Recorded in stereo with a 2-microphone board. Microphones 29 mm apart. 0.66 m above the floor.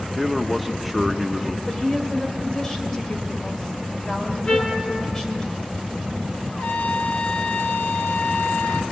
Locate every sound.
0.1 s a man speaking: centre (ahead or behind), 1.0 m
1.7 s a woman speaking: 15° left (ahead or behind), 2.5 m
4.5 s a trumpet: 30° left (ahead or behind), 2.5 m
6.5 s a trumpet: 55° left (ahead or behind), 1.2 m